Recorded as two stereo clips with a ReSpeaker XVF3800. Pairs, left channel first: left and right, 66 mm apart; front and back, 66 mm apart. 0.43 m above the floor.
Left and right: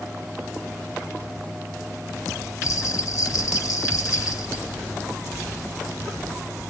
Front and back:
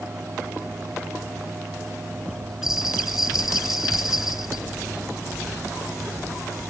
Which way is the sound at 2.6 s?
100° left.